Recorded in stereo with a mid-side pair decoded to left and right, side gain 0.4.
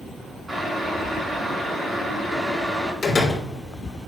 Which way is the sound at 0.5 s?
20° right.